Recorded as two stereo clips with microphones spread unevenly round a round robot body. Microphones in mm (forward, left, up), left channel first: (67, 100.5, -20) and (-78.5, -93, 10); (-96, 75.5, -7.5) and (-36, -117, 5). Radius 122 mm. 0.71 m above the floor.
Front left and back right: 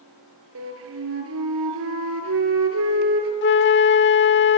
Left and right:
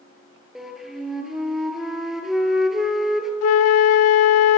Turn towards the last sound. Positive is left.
turn(degrees=100)